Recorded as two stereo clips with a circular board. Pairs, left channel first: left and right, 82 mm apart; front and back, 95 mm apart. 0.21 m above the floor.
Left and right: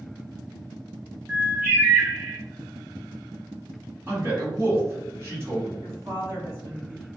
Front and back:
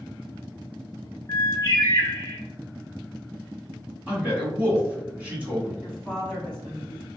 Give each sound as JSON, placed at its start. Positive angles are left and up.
{"t": 1.3, "sound": "a bird", "azimuth_deg": -30, "distance_m": 1.0}
{"t": 4.1, "sound": "a man speaking", "azimuth_deg": -120, "distance_m": 1.4}
{"t": 5.8, "sound": "a woman speaking", "azimuth_deg": -85, "distance_m": 1.7}